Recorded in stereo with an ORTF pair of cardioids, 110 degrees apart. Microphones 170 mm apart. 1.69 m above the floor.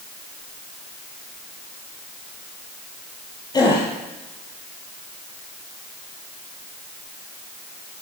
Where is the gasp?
25° left, 10 m.